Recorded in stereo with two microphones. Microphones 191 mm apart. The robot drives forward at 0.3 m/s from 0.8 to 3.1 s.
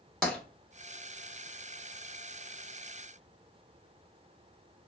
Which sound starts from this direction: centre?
Tapping, at 0.2 s.